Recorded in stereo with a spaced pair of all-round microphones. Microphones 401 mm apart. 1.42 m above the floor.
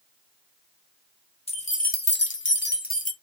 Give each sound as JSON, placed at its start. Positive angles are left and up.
{"t": 1.5, "sound": "keys jangling", "side_deg": 15, "distance_m": 0.9}